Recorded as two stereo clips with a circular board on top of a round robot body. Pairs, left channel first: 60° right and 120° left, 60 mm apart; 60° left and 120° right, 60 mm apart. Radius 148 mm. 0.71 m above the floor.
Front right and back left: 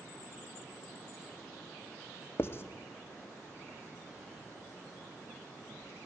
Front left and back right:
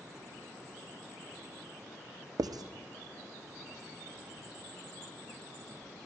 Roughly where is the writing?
Behind right.